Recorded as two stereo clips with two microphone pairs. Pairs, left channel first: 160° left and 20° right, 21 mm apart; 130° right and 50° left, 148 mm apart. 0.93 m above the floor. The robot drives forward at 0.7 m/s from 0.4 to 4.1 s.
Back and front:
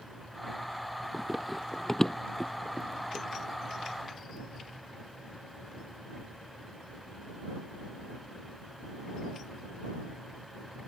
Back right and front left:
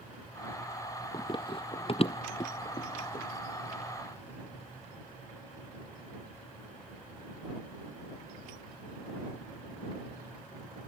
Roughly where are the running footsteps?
Right.